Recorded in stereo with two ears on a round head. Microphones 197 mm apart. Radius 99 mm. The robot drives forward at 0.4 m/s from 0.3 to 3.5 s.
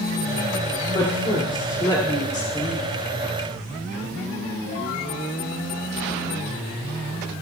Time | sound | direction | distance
0.9 | a woman speaking | 25° left (ahead or behind) | 2.5 m